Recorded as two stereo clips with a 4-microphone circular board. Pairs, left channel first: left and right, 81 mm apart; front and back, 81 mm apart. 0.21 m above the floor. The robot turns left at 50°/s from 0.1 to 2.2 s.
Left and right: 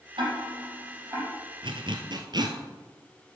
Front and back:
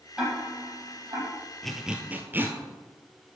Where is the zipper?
85° right, 1.4 m; by 2.6 s 115° right, 1.4 m.